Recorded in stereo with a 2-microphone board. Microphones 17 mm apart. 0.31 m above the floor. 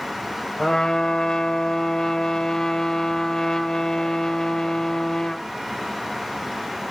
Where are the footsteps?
No footsteps in this recording.